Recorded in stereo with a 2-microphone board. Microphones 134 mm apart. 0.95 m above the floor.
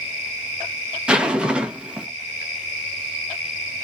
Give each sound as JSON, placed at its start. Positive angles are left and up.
{"t": 1.1, "sound": "a zipper", "side_deg": -10, "distance_m": 0.9}